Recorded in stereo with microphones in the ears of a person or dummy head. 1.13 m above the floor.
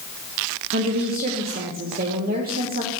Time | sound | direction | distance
0.7 | a woman speaking | 45° right (ahead or behind) | 1.0 m